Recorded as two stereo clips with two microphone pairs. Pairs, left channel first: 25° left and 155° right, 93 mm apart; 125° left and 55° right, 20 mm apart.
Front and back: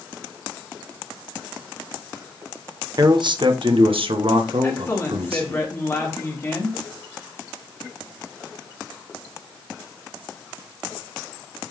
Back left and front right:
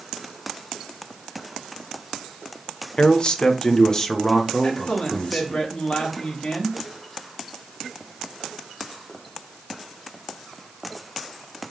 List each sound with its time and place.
3.0 s a man speaking: 165° left, 1.3 m; by 5.6 s 145° right, 2.5 m
4.6 s a man speaking: 85° left, 4 m